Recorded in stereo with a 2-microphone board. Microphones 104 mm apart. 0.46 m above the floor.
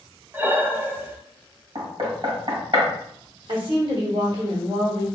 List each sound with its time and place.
0.3 s breathing: 20° right (ahead or behind), 0.5 m
1.8 s knocking: 55° right (ahead or behind), 1.9 m
3.5 s a woman speaking: 50° right (ahead or behind), 1.1 m